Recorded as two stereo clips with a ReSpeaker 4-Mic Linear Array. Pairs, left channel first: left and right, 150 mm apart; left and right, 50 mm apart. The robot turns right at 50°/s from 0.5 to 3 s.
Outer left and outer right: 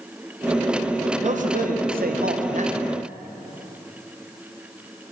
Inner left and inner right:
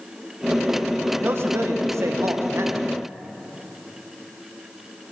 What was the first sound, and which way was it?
A man speaking, 125° right.